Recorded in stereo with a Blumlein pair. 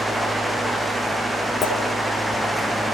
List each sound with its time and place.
0.0 s a fan: 5° right, 1.8 m
1.6 s a clink: 25° left, 4.5 m